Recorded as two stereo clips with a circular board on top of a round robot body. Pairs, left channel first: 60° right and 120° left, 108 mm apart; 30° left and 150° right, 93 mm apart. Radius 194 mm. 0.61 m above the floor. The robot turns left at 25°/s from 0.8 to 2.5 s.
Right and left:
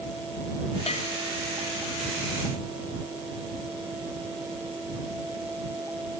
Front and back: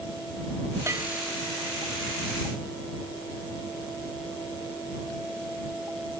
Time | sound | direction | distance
0.9 | a bell | 90° right | ?